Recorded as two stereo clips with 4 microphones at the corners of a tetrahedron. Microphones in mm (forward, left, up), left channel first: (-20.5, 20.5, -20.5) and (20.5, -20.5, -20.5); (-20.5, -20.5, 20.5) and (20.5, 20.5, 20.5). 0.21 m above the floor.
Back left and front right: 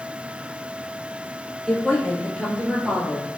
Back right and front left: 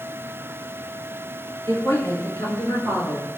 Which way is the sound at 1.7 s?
135° right.